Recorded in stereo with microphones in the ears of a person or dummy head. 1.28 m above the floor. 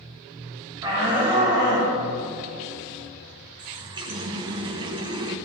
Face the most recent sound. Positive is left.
turn(degrees=-25)  # may be behind; listen again after turning